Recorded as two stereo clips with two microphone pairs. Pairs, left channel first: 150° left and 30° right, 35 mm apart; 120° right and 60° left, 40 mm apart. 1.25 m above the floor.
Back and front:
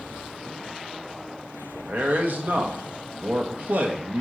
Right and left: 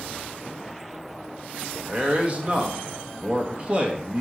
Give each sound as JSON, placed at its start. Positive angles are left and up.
{"t": 1.9, "sound": "a man speaking", "azimuth_deg": 0, "distance_m": 1.2}